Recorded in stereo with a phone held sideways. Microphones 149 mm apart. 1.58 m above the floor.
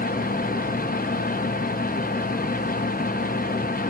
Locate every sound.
0.0 s a fan: 75° left (ahead or behind), 0.8 m